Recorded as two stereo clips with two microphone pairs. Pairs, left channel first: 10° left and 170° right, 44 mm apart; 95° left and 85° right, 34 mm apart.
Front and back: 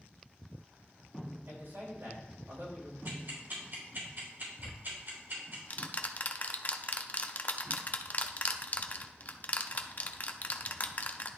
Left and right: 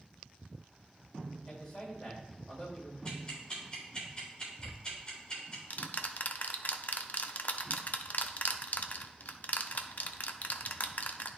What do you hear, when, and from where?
1.5 s a man speaking: 165° left, 3 m
3.0 s ticking: 155° left, 3.5 m
4.6 s ticking: 60° left, 0.5 m